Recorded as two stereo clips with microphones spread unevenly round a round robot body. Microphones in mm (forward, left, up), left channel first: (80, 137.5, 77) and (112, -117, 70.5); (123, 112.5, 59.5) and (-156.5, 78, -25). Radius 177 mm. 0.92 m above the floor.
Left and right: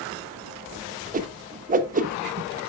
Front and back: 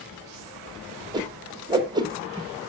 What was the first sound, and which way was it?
A whoosh, 125° right.